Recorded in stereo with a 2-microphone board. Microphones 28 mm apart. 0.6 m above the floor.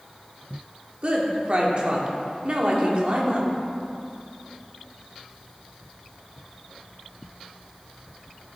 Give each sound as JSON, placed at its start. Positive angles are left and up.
{"t": 1.0, "sound": "a woman speaking", "side_deg": -40, "distance_m": 1.4}